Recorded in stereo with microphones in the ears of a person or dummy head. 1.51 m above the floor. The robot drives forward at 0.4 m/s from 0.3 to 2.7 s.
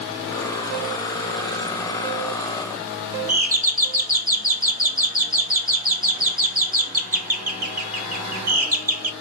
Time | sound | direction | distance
3.3 | a doorbell | 45° right (ahead or behind) | 0.8 m